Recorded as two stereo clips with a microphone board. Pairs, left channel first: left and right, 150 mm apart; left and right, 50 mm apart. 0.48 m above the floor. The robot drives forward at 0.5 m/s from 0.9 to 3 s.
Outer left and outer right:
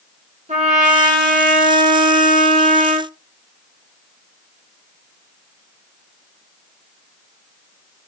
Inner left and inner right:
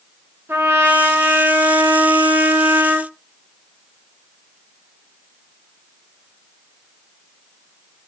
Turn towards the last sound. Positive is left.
turn(degrees=-50)  # may be behind; listen again after turning